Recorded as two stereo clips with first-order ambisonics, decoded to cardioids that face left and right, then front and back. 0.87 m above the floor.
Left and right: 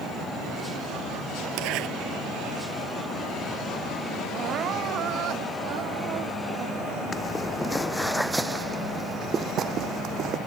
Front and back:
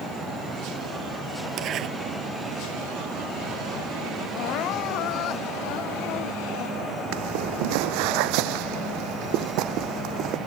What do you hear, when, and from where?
1.6 s a zipper: 125° right
4.3 s crying: 40° right
7.1 s footsteps: 165° left; by 10.4 s 135° right